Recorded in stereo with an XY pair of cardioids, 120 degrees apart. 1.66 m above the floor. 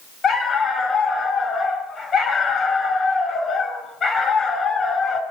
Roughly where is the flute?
I don't hear a flute.